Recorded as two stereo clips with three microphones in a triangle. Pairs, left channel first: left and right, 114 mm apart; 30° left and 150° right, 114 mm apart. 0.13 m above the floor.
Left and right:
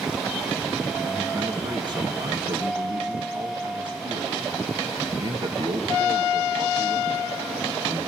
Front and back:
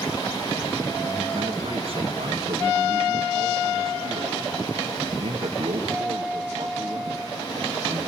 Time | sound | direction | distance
1.0 | a man speaking | 130° right | 2.0 m